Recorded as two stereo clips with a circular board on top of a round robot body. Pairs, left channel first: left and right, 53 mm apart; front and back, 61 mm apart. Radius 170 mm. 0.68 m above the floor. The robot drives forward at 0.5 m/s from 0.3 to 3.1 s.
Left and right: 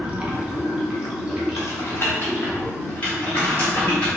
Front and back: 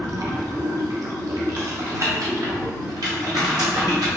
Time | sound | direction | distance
0.0 | running water | 155° right | 0.8 m
1.6 | typing on a keyboard | 125° left | 0.7 m